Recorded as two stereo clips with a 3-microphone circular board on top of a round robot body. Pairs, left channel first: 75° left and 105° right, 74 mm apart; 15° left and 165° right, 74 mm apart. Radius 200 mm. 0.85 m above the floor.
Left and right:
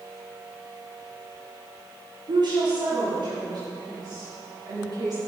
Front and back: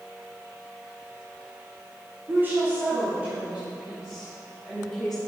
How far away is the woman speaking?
About 3 m.